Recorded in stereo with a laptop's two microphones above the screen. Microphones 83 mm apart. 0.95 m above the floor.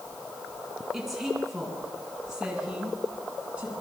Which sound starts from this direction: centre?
A woman speaking, at 0.9 s.